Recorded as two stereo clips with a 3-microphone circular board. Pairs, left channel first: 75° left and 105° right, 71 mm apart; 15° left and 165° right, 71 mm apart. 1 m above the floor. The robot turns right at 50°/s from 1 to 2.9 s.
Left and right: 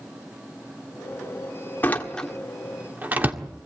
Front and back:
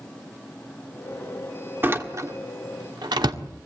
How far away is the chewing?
No chewing in this recording.